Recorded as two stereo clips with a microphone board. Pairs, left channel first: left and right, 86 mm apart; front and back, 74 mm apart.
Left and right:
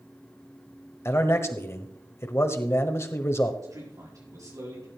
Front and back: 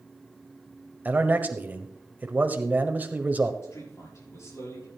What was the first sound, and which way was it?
A man speaking, 130° left.